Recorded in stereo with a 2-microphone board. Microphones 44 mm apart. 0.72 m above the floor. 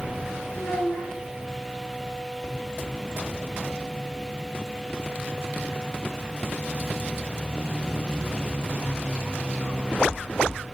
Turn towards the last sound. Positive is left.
turn(degrees=55)  # may be behind; listen again after turning